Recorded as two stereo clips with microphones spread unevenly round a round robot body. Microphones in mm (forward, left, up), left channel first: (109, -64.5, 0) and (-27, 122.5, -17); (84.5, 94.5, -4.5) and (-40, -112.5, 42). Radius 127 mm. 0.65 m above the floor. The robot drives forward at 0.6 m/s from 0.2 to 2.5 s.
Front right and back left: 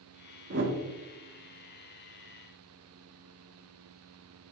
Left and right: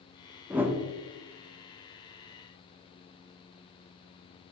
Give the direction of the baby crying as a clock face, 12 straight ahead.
No baby crying in this recording.